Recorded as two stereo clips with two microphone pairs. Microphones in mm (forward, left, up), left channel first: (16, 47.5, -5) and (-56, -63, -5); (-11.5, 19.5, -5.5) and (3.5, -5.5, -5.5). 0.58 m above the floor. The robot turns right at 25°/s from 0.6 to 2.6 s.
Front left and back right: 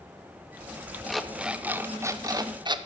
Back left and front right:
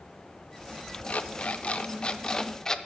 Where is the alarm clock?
145° left, 0.5 m; by 2.8 s 175° right, 0.5 m.